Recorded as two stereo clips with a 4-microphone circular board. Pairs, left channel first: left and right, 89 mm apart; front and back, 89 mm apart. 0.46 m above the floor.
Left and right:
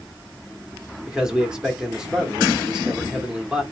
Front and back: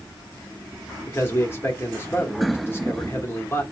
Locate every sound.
1.1 s a man speaking: 15° right, 1.1 m